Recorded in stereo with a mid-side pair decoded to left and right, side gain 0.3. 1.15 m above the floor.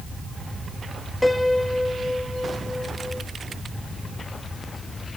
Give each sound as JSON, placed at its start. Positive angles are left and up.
{"t": 1.2, "sound": "a piano", "azimuth_deg": 15, "distance_m": 1.5}